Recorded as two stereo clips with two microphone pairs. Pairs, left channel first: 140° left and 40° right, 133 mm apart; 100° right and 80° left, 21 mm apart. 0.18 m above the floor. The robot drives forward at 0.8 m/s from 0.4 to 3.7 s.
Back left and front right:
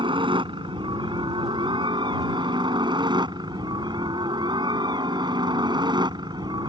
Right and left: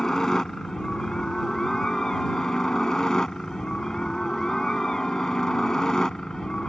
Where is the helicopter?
50° right; by 6.7 s 60° right.